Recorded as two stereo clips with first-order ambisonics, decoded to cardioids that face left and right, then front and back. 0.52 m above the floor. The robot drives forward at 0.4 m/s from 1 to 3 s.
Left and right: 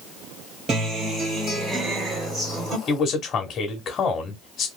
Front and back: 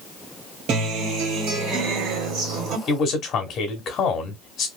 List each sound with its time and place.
0.7 s a guitar: 150° right, 1.6 m; by 2.8 s 160° right, 2 m
2.9 s a man speaking: 40° left, 0.9 m